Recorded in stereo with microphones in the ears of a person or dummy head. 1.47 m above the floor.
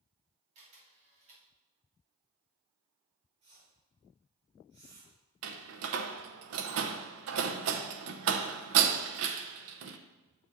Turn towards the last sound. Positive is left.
turn(degrees=-75)  # may be behind; listen again after turning